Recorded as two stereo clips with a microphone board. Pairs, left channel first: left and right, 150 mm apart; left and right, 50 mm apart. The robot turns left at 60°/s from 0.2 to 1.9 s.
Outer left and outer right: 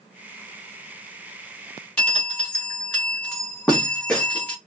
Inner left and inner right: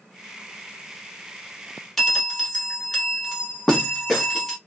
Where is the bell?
10° left (ahead or behind), 1.1 m.